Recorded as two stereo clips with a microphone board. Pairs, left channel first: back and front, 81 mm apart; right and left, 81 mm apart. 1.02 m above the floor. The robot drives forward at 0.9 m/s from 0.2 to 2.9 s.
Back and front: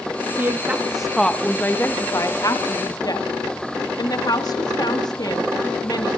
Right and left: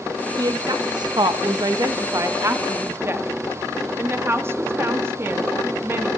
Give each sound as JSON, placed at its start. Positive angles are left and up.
{"t": 0.4, "sound": "a woman speaking", "azimuth_deg": 60, "distance_m": 1.4}